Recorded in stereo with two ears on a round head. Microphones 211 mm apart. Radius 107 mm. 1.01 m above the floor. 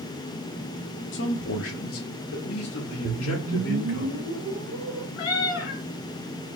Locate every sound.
1.1 s a man speaking: 55° left (ahead or behind), 0.9 m
3.0 s a whoosh: 65° right (ahead or behind), 0.6 m
5.2 s a cat meowing: 65° left (ahead or behind), 2 m